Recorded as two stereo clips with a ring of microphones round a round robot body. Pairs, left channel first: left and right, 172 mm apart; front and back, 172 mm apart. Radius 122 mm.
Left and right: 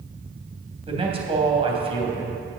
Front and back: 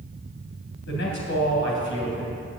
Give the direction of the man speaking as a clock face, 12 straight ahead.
1 o'clock.